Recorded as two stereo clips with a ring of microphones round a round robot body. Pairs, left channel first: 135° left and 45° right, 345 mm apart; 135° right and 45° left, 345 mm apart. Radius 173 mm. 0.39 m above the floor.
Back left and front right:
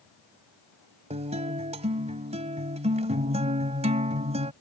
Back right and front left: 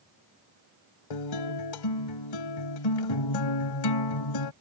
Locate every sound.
1.1 s a guitar: 115° right